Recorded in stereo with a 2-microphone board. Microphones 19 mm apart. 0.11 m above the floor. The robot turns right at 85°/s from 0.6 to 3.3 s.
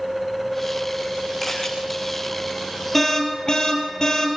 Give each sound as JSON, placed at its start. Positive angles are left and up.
{"t": 1.4, "sound": "a camera shutter", "side_deg": 0, "distance_m": 5.5}
{"t": 2.9, "sound": "an alarm", "azimuth_deg": 10, "distance_m": 4.0}